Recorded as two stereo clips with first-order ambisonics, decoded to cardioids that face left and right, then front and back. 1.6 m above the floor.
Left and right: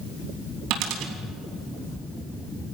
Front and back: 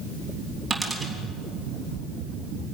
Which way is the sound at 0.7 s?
95° right.